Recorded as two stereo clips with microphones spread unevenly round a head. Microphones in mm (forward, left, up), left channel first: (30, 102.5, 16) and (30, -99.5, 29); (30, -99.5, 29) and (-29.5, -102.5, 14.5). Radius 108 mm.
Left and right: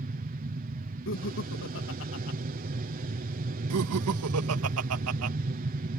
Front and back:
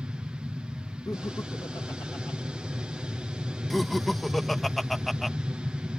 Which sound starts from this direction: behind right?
An aircraft, at 0.0 s.